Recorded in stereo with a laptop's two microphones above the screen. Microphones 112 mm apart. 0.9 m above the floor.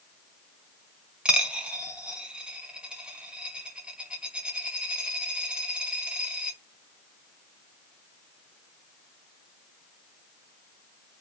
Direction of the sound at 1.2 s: 10° right (ahead or behind).